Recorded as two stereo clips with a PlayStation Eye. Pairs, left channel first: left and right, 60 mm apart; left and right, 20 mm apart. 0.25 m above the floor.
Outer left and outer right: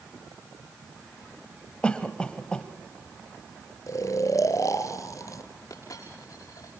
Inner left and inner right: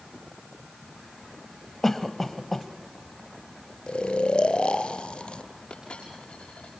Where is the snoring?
60° left (ahead or behind), 1.6 m.